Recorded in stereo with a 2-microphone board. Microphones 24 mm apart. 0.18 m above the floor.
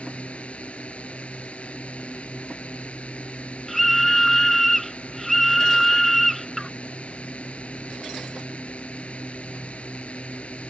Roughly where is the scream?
Centre.